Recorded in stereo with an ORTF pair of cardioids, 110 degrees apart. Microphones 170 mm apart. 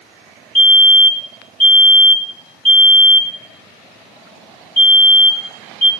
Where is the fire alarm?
10° left, 4.5 m.